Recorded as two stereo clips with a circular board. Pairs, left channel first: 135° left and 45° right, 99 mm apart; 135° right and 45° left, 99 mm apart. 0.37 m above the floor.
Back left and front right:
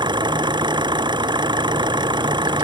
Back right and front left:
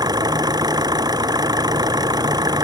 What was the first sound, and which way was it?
An engine running, 5° right.